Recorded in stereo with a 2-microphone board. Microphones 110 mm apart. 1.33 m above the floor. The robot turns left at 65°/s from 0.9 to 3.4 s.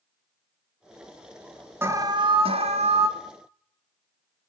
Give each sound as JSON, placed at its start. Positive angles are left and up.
{"t": 1.8, "sound": "an alarm", "azimuth_deg": -20, "distance_m": 2.5}